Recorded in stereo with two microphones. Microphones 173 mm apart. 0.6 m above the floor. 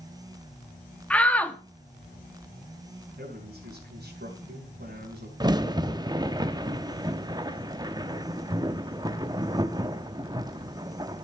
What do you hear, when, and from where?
1.1 s a shout: 10° left (ahead or behind), 1.1 m
3.2 s a man speaking: 75° right (ahead or behind), 3.5 m
5.4 s a crack: 25° right (ahead or behind), 0.8 m